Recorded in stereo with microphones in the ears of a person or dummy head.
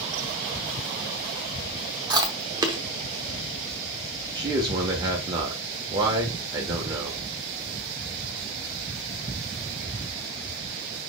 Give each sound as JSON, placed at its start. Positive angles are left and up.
{"t": 2.1, "sound": "chewing", "side_deg": -25, "distance_m": 0.9}
{"t": 4.3, "sound": "a man speaking", "side_deg": -25, "distance_m": 1.1}